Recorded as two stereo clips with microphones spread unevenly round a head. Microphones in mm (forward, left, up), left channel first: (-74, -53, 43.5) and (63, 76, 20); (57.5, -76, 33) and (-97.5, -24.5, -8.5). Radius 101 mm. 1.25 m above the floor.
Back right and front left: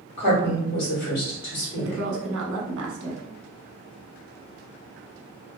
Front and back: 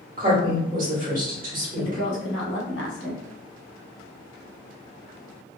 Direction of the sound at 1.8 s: 10° left.